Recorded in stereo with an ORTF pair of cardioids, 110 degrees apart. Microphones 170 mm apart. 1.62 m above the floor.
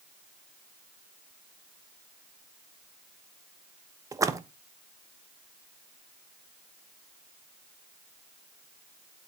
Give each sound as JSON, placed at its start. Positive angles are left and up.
{"t": 4.1, "sound": "a splash", "azimuth_deg": -20, "distance_m": 1.1}